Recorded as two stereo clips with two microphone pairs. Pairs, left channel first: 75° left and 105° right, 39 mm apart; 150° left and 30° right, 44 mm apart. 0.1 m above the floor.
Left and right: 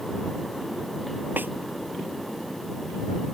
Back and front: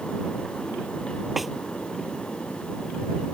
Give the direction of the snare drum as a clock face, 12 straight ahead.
4 o'clock.